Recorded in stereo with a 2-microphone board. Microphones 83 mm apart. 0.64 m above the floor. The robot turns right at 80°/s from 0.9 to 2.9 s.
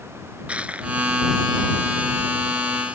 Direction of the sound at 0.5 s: 15° right (ahead or behind).